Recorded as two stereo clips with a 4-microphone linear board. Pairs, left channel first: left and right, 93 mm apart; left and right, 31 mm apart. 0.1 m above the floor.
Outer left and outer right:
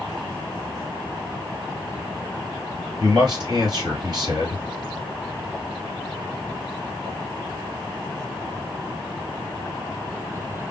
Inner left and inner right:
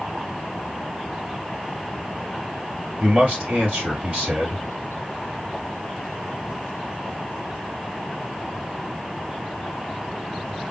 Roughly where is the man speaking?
Right.